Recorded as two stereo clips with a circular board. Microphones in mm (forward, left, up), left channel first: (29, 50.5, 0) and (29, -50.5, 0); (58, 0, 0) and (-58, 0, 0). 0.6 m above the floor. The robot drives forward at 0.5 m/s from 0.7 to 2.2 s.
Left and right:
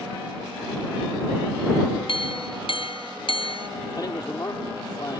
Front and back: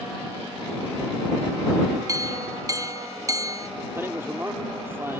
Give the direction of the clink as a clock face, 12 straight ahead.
8 o'clock.